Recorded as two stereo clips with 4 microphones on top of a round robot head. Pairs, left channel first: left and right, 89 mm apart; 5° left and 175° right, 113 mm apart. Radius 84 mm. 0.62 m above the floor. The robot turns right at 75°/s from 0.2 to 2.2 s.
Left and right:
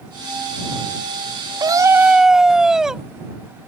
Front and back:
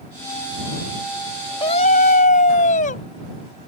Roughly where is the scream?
Ahead right.